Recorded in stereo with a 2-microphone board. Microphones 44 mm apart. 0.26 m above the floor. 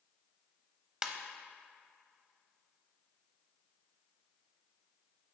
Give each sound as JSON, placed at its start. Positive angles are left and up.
{"t": 1.0, "sound": "a ringtone", "side_deg": -15, "distance_m": 0.5}